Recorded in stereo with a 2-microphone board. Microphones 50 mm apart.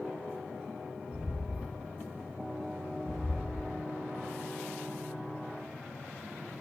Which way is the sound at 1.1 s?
20° right (ahead or behind).